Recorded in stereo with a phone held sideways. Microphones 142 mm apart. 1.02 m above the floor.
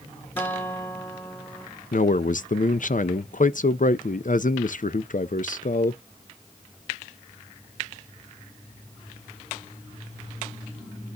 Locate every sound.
0.4 s a guitar: 15° left (ahead or behind), 1.5 m
1.9 s a man speaking: 65° left (ahead or behind), 0.6 m